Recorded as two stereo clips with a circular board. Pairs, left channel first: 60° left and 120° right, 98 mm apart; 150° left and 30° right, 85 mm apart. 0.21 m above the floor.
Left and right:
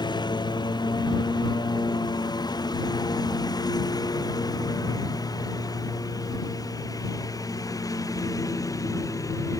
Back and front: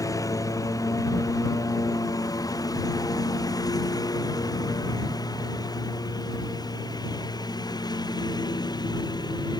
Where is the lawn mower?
100° left; by 9.6 s 115° left.